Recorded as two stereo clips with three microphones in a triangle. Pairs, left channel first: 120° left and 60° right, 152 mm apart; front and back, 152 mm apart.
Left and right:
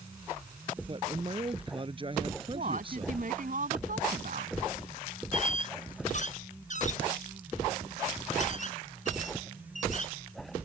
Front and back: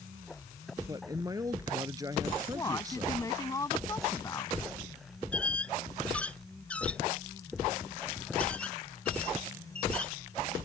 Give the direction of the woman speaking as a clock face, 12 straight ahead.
2 o'clock.